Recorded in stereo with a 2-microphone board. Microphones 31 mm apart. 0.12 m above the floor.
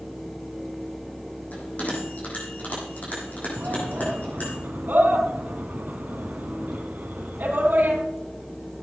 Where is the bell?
50° left (ahead or behind), 6.5 m.